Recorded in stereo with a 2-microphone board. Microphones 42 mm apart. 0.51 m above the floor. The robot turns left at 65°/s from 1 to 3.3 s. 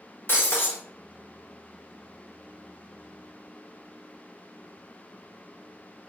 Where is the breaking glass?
60° left (ahead or behind), 0.7 m.